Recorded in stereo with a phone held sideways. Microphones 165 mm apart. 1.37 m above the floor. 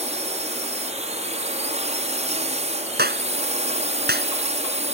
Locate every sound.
0.0 s a drone: 45° right (ahead or behind)
3.0 s a clap: 75° right (ahead or behind)